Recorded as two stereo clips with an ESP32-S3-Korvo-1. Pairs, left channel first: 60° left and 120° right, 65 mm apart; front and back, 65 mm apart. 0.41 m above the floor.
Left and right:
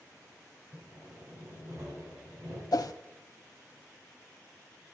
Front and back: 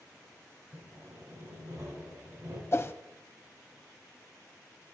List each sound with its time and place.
0.7 s sawing: 155° right, 4.5 m
2.7 s a whoosh: 45° left, 0.6 m